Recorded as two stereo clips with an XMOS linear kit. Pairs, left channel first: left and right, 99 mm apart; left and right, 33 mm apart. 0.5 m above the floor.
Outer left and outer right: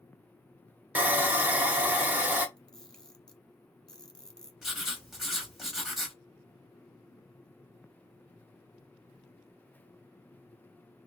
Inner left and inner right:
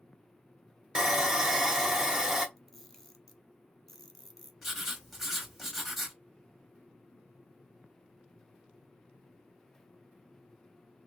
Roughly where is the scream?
I don't hear a scream.